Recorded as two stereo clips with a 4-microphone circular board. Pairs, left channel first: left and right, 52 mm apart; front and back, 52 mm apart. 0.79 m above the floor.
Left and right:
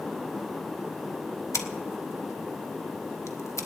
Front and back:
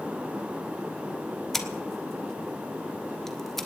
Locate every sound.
1.5 s scissors: 80° left, 1.2 m